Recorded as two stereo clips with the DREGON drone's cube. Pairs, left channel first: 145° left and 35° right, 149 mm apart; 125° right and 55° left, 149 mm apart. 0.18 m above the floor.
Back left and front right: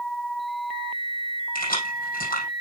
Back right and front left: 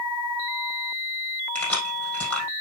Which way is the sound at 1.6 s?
155° left.